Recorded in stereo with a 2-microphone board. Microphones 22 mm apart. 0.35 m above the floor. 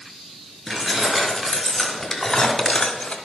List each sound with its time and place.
0.7 s keys jangling: 10° right (ahead or behind), 3.5 m; by 3.1 s 55° left (ahead or behind), 1.2 m